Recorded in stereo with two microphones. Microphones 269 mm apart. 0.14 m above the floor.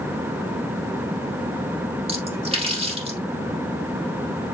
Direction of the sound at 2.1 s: 20° right (ahead or behind).